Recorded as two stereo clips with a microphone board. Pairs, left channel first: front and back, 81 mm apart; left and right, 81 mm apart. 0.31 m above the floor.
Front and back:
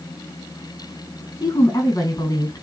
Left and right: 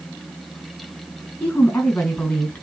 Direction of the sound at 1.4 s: 30° left.